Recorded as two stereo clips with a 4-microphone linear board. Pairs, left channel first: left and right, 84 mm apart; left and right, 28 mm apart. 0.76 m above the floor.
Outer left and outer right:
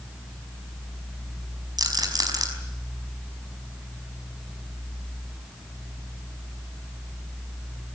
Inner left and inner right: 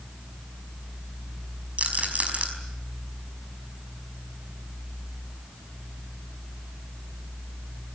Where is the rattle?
50° right (ahead or behind), 5 m.